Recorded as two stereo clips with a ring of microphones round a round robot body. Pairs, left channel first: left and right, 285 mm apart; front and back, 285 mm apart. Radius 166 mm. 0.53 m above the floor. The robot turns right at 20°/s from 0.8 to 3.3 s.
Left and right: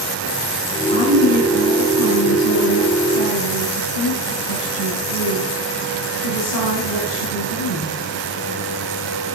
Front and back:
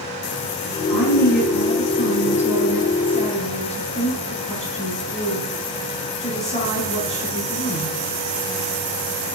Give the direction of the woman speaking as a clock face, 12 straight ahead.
11 o'clock.